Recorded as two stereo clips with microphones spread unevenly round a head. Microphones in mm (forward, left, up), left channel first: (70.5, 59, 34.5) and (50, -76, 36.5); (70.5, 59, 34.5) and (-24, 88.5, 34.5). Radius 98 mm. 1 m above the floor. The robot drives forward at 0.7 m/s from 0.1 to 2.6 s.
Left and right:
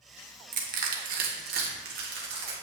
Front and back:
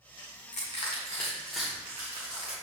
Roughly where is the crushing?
Right.